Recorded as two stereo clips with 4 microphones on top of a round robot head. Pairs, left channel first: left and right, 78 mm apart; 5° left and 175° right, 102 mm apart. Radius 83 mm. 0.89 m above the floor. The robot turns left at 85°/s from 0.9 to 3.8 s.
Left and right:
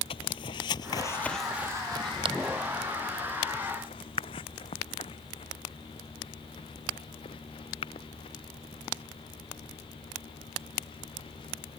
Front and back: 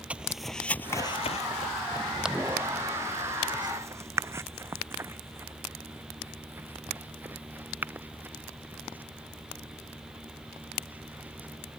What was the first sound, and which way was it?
Footsteps, 105° left.